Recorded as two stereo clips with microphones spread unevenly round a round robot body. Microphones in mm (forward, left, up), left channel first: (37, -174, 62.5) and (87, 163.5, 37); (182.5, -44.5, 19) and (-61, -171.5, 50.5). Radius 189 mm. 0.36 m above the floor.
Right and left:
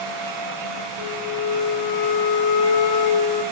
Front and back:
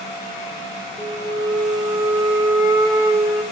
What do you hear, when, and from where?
1.0 s a flute: 80° right, 5 m